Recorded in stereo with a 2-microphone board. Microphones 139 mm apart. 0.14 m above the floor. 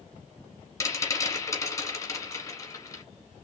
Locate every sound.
0.8 s a rattle: 25° left (ahead or behind), 1.4 m